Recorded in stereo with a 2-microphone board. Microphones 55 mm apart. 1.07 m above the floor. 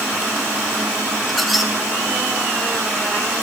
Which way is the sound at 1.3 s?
Centre (ahead or behind).